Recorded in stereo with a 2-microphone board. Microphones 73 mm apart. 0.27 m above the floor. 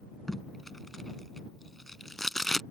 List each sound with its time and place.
0.3 s tape being pulled: 5° left (ahead or behind)